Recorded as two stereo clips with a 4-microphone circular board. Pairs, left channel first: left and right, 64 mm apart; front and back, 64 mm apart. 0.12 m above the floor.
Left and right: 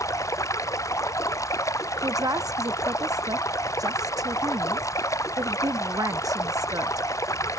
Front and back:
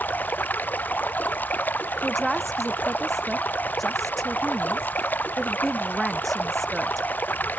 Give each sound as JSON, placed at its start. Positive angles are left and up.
{"t": 0.0, "sound": "running water", "azimuth_deg": 60}
{"t": 2.0, "sound": "a woman speaking", "azimuth_deg": -90}